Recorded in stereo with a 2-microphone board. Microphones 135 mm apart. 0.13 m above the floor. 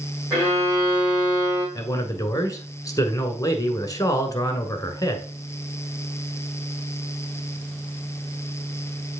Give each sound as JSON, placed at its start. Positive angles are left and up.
{"t": 0.3, "sound": "a violin", "side_deg": -30, "distance_m": 5.0}
{"t": 1.8, "sound": "a man speaking", "side_deg": 25, "distance_m": 1.2}